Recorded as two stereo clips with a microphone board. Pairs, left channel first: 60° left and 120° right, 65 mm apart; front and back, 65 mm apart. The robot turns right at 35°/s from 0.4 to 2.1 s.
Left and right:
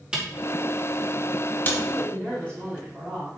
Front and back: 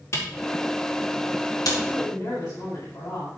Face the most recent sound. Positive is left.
turn(degrees=-15)